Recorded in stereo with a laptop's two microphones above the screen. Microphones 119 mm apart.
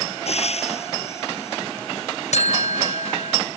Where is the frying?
60° left (ahead or behind).